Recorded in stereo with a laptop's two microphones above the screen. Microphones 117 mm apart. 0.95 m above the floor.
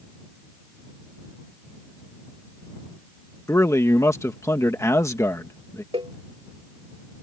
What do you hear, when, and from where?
3.5 s a man speaking: 25° left (ahead or behind)
5.9 s a cowbell: 50° right (ahead or behind)